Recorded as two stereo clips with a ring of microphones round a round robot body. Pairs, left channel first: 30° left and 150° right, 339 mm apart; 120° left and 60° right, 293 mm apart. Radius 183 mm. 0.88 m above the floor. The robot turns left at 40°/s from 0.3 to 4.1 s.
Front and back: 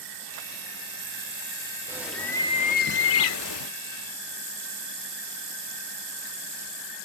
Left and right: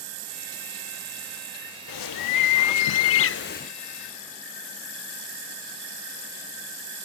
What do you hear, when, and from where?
1.9 s a bird: 130° left, 0.5 m; by 3.7 s 55° left, 0.5 m